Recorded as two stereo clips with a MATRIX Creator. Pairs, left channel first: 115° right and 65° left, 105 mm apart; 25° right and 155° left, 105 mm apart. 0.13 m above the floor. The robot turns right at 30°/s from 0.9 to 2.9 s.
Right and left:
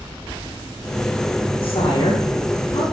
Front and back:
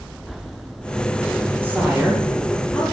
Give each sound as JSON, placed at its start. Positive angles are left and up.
{"t": 1.6, "sound": "a woman speaking", "azimuth_deg": -135, "distance_m": 7.0}